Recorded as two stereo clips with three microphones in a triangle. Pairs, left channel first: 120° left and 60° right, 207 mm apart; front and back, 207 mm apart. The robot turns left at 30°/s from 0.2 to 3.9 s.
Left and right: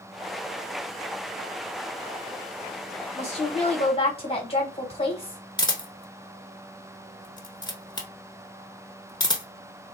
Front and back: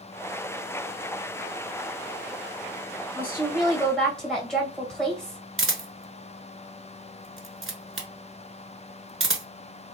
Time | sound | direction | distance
3.1 | a woman speaking | 105° left | 1.7 m
5.6 | a camera shutter | 170° right | 0.8 m